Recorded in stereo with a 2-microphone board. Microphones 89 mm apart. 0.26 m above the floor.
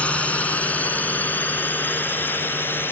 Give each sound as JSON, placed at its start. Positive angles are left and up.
{"t": 0.0, "sound": "a drone", "side_deg": 15}